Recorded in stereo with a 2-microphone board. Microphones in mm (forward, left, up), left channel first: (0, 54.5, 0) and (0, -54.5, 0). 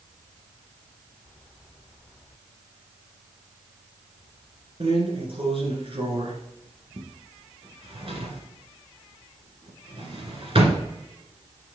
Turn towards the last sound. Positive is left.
turn(degrees=-60)  # may be behind; listen again after turning